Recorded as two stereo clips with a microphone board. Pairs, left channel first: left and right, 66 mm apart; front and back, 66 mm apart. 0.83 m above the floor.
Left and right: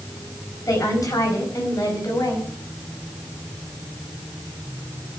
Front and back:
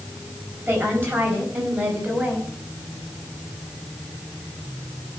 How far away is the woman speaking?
About 5 m.